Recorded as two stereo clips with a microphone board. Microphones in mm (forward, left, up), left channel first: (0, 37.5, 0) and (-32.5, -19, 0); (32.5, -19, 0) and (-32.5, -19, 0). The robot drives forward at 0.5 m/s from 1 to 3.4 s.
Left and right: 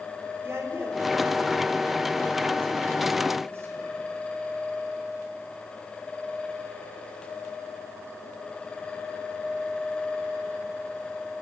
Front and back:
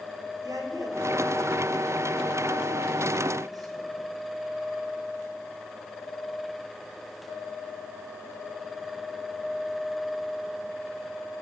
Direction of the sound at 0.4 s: 170° right.